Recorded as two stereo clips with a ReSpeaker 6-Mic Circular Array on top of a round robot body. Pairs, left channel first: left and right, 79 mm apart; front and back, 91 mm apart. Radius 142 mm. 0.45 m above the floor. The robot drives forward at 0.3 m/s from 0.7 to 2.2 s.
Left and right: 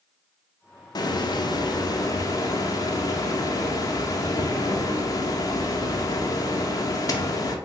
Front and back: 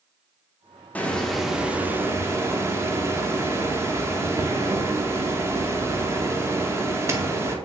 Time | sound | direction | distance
0.9 | a hiss | 70° left | 0.5 m